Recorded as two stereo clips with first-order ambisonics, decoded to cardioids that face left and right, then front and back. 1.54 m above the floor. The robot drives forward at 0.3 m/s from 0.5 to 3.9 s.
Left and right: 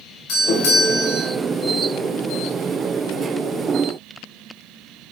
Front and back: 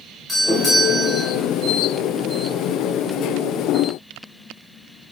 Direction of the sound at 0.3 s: 85° left.